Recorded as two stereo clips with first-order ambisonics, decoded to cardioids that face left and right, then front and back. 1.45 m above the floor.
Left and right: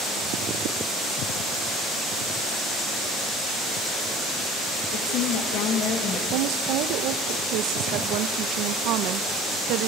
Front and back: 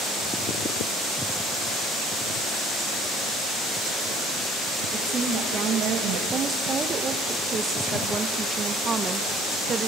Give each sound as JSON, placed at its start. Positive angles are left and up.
{"t": 4.9, "sound": "a woman speaking", "azimuth_deg": 115, "distance_m": 2.5}
{"t": 6.3, "sound": "a woman speaking", "azimuth_deg": -115, "distance_m": 0.9}